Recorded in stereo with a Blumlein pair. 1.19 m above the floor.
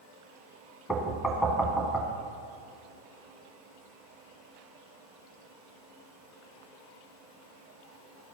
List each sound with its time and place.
0.9 s knocking: 5° left, 1.7 m